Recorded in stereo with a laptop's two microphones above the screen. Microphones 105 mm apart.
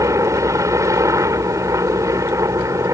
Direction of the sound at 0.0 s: 30° right (ahead or behind).